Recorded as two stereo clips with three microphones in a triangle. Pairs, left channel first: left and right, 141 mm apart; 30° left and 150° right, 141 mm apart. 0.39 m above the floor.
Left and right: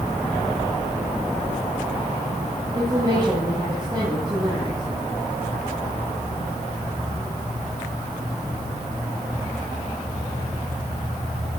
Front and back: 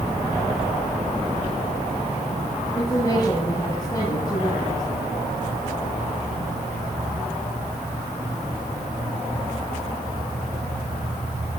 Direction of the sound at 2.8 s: 30° right.